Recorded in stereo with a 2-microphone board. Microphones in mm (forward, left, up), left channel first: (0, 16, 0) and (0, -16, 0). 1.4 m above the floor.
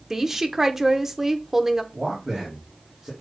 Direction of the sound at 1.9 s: 15° right (ahead or behind).